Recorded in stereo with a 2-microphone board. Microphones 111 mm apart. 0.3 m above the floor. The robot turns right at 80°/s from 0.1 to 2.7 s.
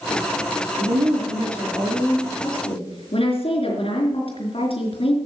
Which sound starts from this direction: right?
A woman speaking, at 0.8 s.